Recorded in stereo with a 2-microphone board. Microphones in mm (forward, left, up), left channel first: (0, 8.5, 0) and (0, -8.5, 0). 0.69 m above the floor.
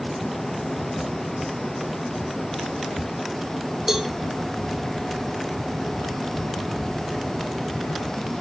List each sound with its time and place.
3.9 s a cowbell: 20° right (ahead or behind), 1.2 m